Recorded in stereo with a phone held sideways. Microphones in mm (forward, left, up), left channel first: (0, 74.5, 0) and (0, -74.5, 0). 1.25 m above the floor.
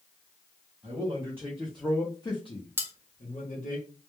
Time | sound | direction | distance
0.8 | a man speaking | 35° right (ahead or behind) | 0.8 m
2.8 | cutlery clinking | 15° right (ahead or behind) | 0.5 m